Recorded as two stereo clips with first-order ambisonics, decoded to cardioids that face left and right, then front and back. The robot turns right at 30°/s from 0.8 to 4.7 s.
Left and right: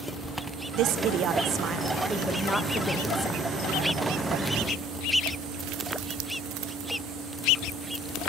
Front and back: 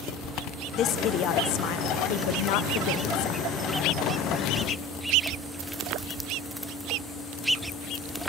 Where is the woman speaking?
50° right, 0.7 m; by 3.4 s 25° left, 0.7 m.